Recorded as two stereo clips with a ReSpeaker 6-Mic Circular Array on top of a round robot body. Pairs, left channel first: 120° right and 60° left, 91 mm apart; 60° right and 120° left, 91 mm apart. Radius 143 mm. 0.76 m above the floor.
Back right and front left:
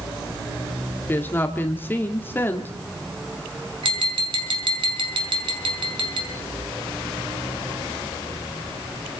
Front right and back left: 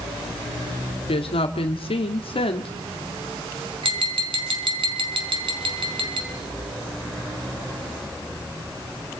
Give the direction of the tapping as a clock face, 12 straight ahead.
9 o'clock.